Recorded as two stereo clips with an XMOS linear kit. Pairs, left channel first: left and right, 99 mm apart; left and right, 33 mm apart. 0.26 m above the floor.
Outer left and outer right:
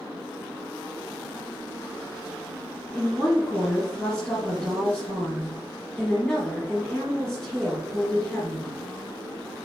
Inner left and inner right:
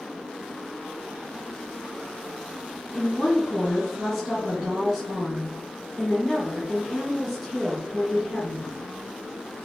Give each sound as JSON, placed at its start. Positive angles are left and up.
{"t": 2.9, "sound": "a woman speaking", "side_deg": 0, "distance_m": 2.5}